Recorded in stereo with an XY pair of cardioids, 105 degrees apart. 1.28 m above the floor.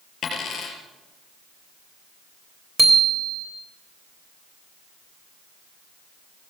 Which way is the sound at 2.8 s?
5° right.